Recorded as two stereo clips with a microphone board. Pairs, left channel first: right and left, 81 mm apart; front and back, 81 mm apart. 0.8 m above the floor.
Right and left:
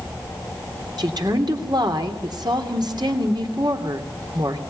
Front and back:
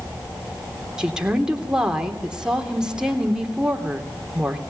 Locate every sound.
1.0 s a woman speaking: 100° left, 3 m